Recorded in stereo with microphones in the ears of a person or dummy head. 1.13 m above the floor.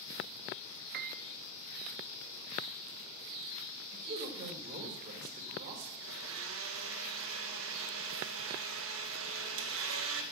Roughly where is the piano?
Right.